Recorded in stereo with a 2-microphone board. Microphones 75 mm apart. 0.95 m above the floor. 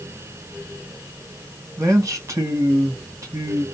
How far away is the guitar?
No guitar in this recording.